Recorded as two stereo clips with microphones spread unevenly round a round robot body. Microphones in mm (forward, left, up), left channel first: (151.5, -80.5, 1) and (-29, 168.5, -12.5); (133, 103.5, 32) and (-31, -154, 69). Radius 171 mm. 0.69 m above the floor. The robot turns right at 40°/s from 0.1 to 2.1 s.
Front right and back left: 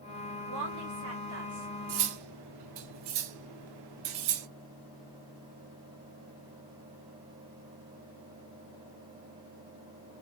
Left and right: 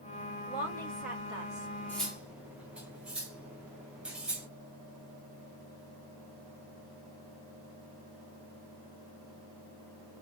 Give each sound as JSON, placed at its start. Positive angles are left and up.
{"t": 0.5, "sound": "a woman speaking", "azimuth_deg": 125, "distance_m": 2.0}
{"t": 1.9, "sound": "cutlery clinking", "azimuth_deg": 140, "distance_m": 0.6}